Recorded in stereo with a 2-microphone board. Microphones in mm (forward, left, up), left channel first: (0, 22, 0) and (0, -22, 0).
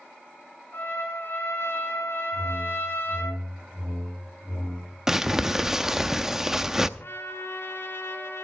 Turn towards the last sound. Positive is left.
turn(degrees=65)  # may be behind; listen again after turning